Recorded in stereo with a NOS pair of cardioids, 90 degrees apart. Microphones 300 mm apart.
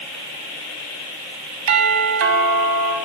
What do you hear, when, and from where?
1.7 s a doorbell: 60° right, 3 m